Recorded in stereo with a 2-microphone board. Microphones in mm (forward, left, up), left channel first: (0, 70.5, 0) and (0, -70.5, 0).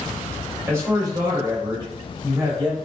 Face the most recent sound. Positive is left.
turn(degrees=-20)  # may be behind; listen again after turning